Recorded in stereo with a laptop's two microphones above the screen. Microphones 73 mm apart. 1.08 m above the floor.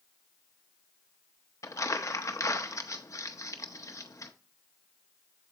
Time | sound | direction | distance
1.6 | crumpling | 45° left (ahead or behind) | 0.7 m